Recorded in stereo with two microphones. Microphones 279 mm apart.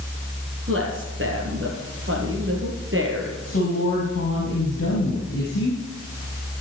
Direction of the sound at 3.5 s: 50° left (ahead or behind).